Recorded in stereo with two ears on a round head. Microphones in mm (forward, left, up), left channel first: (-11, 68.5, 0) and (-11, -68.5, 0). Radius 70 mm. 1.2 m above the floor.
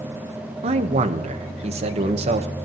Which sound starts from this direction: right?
A man speaking, at 0.6 s.